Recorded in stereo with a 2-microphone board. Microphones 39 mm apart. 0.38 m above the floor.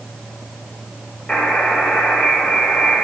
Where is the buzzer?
20° left (ahead or behind), 1.5 m.